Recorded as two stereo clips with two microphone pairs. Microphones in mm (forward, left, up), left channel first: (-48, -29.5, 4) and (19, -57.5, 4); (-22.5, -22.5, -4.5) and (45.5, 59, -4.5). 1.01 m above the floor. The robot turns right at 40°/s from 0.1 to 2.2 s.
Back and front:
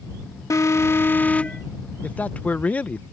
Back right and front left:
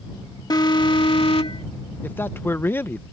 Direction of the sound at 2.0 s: 175° right.